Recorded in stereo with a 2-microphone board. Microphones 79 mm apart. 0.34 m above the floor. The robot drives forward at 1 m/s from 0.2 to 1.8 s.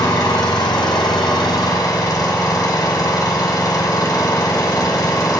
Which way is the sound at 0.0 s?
50° left (ahead or behind).